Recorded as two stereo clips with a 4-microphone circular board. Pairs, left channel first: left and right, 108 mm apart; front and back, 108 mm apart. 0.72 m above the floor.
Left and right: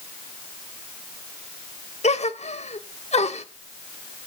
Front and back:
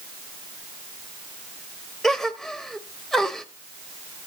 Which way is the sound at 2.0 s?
90° left.